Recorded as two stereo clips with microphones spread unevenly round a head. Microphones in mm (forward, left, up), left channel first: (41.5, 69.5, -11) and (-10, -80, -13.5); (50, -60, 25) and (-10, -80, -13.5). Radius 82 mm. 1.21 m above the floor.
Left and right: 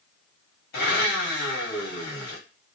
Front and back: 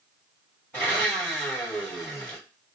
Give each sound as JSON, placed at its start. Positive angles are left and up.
{"t": 0.7, "sound": "a blender", "azimuth_deg": 105, "distance_m": 1.5}